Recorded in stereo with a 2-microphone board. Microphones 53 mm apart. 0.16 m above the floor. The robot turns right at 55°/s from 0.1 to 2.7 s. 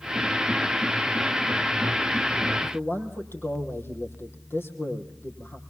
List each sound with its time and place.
2.6 s a man speaking: 45° left (ahead or behind), 5.5 m; by 5.6 s 50° left (ahead or behind), 5.5 m